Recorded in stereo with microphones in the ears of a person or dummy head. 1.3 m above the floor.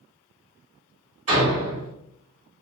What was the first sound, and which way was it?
A door slam, 35° right (ahead or behind).